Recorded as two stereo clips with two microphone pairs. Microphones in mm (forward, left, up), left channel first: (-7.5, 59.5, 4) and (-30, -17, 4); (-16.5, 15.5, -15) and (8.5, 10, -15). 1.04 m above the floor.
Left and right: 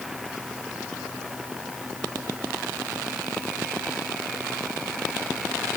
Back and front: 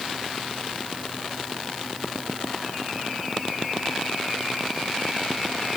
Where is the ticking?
I don't hear ticking.